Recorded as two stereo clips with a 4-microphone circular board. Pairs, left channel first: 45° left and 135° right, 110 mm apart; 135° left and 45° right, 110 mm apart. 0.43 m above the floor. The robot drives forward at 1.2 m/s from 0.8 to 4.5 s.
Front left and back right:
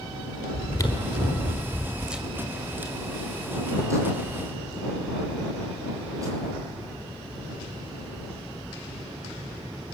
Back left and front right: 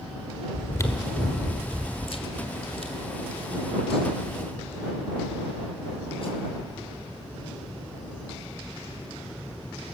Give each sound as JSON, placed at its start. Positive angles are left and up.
{"t": 0.5, "sound": "chewing", "azimuth_deg": 85, "distance_m": 1.6}